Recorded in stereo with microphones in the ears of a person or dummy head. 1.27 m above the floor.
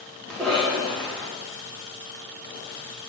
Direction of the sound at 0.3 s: 5° left (ahead or behind).